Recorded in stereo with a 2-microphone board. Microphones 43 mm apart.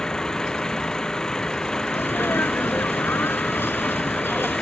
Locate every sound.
0.0 s an engine running: 10° left (ahead or behind)
1.9 s a sneeze: 65° left (ahead or behind)